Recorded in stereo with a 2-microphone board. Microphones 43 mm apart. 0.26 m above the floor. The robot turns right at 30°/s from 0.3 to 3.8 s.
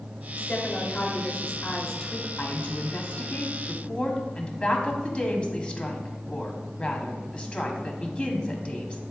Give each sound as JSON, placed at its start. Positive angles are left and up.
{"t": 0.4, "sound": "a woman speaking", "azimuth_deg": 100, "distance_m": 1.2}
{"t": 2.4, "sound": "a woman speaking", "azimuth_deg": 100, "distance_m": 1.3}